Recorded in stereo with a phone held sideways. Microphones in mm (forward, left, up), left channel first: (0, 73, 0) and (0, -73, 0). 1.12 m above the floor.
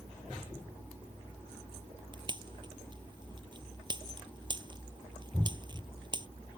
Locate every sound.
2.1 s a pop: 30° right (ahead or behind)